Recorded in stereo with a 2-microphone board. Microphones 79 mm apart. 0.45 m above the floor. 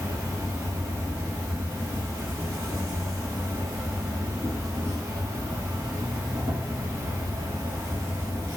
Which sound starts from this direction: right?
An insect, at 0.0 s.